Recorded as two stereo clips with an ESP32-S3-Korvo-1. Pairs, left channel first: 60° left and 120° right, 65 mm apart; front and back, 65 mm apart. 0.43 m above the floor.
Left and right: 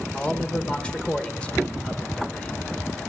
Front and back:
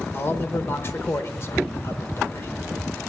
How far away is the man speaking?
About 1.0 m.